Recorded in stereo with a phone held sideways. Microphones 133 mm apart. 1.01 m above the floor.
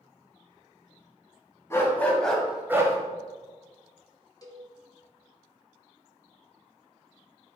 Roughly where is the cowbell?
Left.